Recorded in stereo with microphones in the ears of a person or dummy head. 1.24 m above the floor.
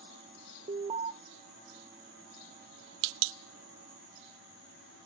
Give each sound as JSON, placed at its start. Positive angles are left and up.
{"t": 0.7, "sound": "an alarm", "side_deg": -30, "distance_m": 0.6}